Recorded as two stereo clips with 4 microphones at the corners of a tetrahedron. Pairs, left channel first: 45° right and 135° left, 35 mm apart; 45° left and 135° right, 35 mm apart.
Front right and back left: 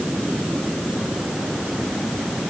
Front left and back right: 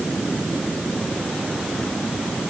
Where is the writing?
I don't hear writing.